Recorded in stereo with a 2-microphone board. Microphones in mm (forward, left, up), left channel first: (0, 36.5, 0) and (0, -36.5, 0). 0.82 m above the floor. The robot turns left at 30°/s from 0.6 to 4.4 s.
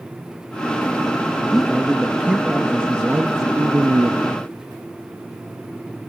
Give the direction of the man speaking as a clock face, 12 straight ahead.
12 o'clock.